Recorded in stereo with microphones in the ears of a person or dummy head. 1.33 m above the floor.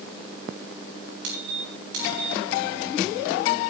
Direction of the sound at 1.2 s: 60° right (ahead or behind).